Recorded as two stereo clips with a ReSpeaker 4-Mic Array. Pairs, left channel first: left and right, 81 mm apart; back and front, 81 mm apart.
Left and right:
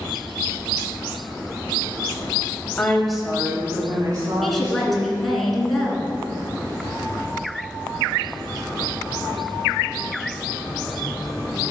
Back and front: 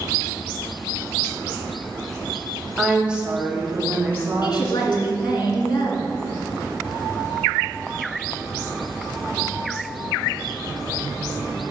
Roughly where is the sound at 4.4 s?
Behind.